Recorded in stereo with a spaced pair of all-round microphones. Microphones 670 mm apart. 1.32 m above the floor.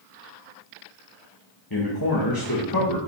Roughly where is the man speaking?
Left.